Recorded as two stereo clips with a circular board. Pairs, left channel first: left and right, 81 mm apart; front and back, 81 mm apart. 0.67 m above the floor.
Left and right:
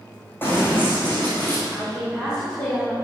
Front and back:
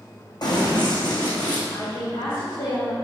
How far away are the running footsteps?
About 2.5 m.